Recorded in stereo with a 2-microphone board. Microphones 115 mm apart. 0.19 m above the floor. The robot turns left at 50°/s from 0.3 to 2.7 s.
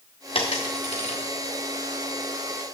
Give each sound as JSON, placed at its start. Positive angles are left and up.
{"t": 0.3, "sound": "a dropped coin", "side_deg": 65, "distance_m": 1.7}